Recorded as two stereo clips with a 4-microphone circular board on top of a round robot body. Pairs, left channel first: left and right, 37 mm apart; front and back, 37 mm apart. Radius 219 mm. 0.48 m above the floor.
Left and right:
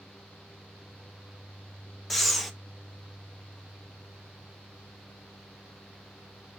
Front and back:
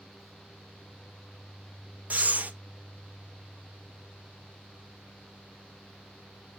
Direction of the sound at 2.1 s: 175° left.